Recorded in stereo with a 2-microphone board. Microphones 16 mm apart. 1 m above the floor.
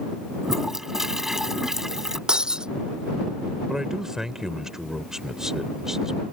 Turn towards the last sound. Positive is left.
turn(degrees=-35)  # may be behind; listen again after turning